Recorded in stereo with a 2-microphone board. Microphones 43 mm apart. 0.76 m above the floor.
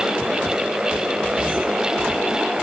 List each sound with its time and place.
Only background noise.